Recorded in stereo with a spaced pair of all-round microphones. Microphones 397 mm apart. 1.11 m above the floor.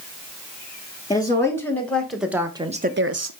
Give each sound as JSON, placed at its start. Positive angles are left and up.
{"t": 1.1, "sound": "a woman speaking", "side_deg": 10, "distance_m": 2.5}